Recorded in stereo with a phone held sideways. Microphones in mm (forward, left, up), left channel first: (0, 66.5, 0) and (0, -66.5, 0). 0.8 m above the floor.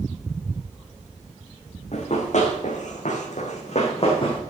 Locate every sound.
1.9 s running footsteps: 55° left (ahead or behind), 2.5 m; by 4.4 s 40° left (ahead or behind), 2 m